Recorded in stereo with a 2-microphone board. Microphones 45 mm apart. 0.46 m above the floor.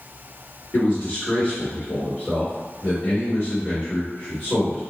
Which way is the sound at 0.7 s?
35° left (ahead or behind).